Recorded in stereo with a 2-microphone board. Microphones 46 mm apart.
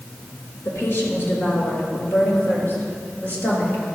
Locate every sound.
0.7 s a woman speaking: 60° left (ahead or behind), 4 m; by 3.8 s 45° left (ahead or behind), 5 m